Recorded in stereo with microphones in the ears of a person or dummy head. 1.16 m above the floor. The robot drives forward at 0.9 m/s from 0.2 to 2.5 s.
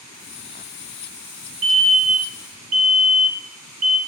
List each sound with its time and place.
1.6 s a fire alarm: 35° right (ahead or behind), 3 m; by 4.0 s 45° right (ahead or behind), 2.5 m